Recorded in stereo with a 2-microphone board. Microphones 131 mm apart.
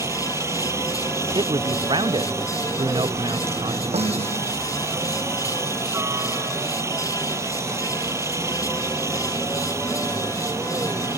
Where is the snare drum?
50° right (ahead or behind).